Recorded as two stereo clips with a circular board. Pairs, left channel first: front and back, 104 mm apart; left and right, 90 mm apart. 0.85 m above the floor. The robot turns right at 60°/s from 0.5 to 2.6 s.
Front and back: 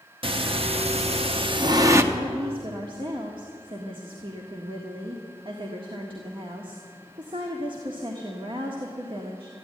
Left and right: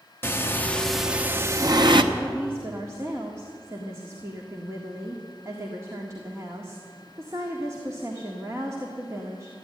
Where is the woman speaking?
175° right, 1.6 m; by 9.5 s 145° right, 1.6 m.